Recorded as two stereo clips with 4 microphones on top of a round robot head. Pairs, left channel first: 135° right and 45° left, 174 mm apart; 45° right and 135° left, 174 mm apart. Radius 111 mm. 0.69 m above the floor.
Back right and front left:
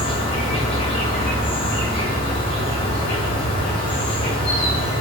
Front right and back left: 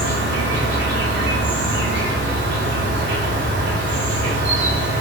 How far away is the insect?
About 1.0 m.